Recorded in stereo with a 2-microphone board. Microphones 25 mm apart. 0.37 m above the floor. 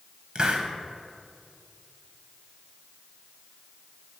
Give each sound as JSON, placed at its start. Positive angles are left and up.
{"t": 0.3, "sound": "a hiss", "side_deg": -35, "distance_m": 0.6}